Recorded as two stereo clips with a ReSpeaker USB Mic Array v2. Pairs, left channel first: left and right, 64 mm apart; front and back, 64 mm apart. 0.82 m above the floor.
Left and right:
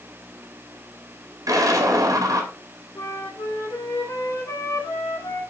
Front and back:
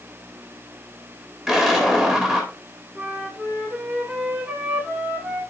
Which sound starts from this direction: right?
An explosion, at 1.5 s.